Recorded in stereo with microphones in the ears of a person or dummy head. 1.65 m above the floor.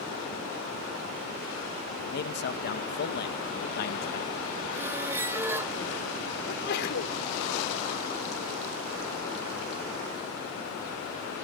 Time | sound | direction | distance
2.0 | a man speaking | 50° left (ahead or behind) | ?
4.7 | a squeak | 5° right (ahead or behind) | ?
6.5 | a sneeze | 55° left (ahead or behind) | ?